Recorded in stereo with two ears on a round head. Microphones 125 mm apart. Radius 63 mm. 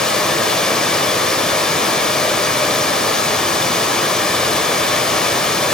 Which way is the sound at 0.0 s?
5° left (ahead or behind).